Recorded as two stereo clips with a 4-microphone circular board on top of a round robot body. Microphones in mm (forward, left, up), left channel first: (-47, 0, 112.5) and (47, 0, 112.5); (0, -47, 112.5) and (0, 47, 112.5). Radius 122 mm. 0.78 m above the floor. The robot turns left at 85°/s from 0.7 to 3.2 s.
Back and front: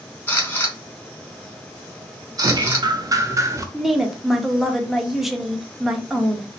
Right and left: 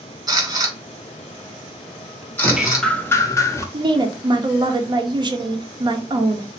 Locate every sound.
0.3 s a camera shutter: 120° left, 1.4 m; by 2.9 s 60° right, 1.4 m
2.4 s dripping: 25° left, 0.6 m; by 3.6 s 40° right, 0.6 m
3.7 s a woman speaking: 85° left, 0.7 m